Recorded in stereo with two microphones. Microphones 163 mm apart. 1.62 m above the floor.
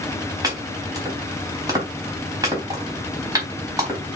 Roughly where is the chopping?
Right.